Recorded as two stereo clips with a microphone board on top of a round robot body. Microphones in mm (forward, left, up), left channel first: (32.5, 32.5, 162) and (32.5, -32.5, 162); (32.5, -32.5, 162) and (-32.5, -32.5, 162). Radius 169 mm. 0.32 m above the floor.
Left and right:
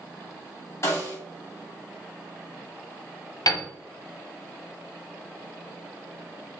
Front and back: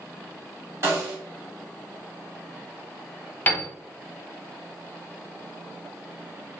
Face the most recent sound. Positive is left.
turn(degrees=65)